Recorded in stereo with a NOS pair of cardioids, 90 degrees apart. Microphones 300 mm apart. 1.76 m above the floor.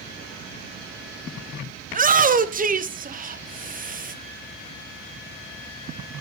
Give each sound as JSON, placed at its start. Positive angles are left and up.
{"t": 1.9, "sound": "a shout", "azimuth_deg": -25, "distance_m": 1.2}